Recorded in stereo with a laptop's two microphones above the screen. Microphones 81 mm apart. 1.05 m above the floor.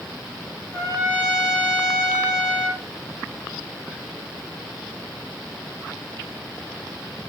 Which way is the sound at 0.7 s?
30° right (ahead or behind).